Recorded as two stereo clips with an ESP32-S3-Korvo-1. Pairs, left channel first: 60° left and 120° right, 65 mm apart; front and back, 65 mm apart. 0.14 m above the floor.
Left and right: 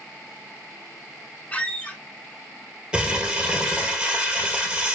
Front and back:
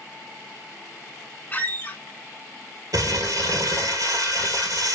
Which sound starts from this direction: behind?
Crumpling, at 2.9 s.